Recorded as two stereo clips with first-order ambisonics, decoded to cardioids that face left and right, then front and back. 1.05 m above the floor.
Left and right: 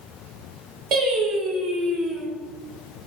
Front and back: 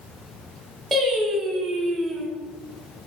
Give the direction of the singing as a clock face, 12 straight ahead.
3 o'clock.